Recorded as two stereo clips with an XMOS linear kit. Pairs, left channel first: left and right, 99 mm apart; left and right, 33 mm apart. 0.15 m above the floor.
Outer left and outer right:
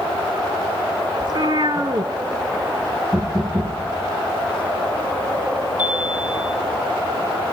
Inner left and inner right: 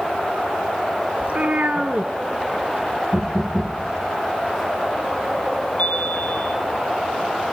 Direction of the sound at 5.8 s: 50° left (ahead or behind).